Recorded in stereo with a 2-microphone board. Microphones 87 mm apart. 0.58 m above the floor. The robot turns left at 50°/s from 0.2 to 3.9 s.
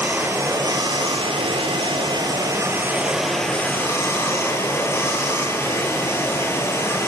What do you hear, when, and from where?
0.0 s running water: 25° right, 4.5 m; by 7.1 s 150° left, 4.5 m